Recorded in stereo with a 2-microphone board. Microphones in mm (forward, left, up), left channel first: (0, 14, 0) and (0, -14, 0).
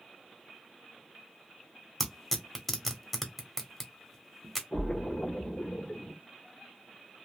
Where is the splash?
65° left (ahead or behind), 1.5 m.